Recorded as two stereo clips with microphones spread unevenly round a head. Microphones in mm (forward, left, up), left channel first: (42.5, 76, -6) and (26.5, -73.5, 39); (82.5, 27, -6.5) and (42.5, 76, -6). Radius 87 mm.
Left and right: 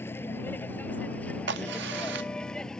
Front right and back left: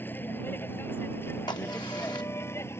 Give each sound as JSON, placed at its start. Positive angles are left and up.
{"t": 0.0, "sound": "a vehicle", "azimuth_deg": 5}
{"t": 1.5, "sound": "a crack", "azimuth_deg": -100}